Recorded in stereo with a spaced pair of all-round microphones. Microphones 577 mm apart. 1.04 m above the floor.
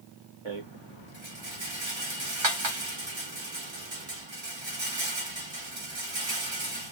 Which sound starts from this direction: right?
A rattle, at 0.5 s.